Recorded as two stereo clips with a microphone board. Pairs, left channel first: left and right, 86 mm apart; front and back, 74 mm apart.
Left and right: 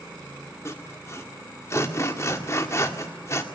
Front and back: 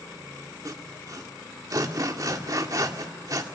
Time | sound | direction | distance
0.7 | sawing | 145° left | 1.9 m